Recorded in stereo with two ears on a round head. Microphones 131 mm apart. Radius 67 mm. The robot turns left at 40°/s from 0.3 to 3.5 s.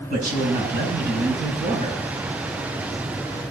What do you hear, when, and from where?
0.1 s a man speaking: 65° right, 5 m; by 2.0 s 135° right, 5 m